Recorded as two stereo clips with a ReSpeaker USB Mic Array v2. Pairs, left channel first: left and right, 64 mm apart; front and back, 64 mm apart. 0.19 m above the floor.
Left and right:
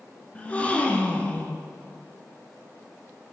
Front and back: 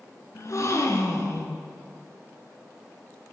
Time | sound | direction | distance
0.3 | a gasp | 25° left | 1.3 m